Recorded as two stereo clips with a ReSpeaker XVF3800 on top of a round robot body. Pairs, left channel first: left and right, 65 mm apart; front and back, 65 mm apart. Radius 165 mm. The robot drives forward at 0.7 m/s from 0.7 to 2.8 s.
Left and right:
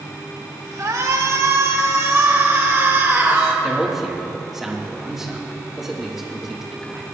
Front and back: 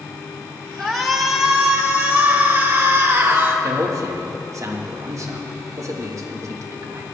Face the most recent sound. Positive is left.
turn(degrees=-170)